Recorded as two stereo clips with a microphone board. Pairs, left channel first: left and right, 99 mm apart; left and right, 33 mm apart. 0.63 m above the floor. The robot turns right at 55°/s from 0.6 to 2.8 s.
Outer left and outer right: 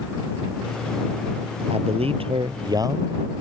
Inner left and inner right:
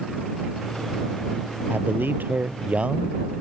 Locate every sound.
1.7 s a man speaking: 100° right; by 3.4 s 40° right